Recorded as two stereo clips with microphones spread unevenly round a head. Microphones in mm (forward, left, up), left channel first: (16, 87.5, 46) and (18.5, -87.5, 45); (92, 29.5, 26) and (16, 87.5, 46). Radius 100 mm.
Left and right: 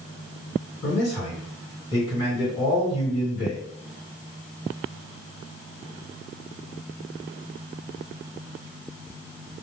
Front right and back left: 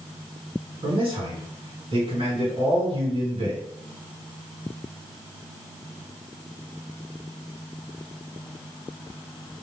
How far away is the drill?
I don't hear a drill.